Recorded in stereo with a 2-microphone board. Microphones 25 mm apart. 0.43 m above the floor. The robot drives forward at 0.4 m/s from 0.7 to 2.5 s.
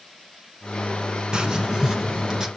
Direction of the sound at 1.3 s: 40° right (ahead or behind).